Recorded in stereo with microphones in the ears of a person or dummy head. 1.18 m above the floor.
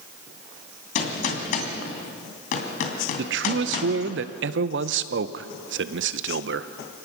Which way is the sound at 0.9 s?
55° left (ahead or behind).